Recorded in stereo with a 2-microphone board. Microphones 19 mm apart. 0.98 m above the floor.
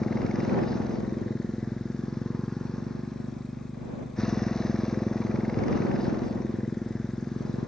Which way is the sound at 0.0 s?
30° left (ahead or behind).